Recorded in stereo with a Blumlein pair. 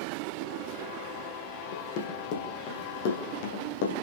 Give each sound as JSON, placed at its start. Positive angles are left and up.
{"t": 1.7, "sound": "running footsteps", "azimuth_deg": 45, "distance_m": 4.5}